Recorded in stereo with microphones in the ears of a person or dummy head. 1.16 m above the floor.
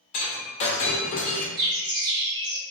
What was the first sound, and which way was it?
Breaking glass, 40° left (ahead or behind).